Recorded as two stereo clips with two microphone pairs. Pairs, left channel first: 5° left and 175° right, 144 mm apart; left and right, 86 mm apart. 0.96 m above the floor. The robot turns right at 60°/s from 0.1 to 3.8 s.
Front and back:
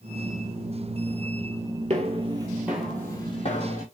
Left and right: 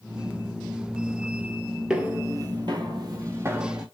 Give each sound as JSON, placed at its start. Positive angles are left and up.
{"t": 1.9, "sound": "footsteps", "azimuth_deg": -170, "distance_m": 1.3}